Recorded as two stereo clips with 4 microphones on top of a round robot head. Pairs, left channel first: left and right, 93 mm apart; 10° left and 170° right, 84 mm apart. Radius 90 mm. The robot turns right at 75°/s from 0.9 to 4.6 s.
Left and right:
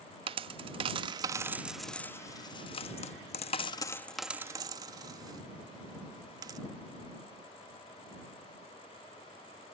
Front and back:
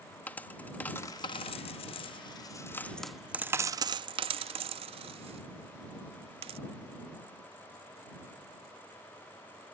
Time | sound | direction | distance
0.3 | a dropped coin | 65° right | ?